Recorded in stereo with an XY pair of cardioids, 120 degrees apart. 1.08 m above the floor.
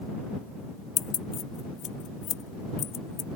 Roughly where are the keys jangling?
Ahead left.